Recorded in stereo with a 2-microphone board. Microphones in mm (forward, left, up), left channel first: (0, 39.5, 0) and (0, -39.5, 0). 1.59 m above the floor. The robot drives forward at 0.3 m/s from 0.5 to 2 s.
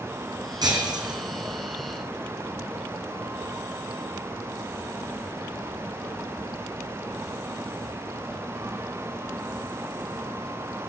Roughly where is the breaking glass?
Right.